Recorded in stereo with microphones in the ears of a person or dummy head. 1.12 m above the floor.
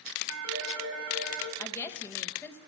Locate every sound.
0.3 s a phone ringing: 75° right (ahead or behind), 2.5 m
1.6 s a woman speaking: 15° left (ahead or behind), 0.9 m